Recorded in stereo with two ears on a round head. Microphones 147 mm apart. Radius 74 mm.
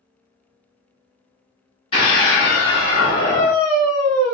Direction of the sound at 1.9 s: 35° left (ahead or behind).